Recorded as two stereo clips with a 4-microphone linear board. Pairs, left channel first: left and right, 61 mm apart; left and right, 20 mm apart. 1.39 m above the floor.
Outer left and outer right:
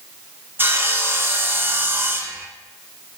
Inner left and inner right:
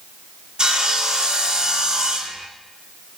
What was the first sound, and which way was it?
Sawing, 35° right (ahead or behind).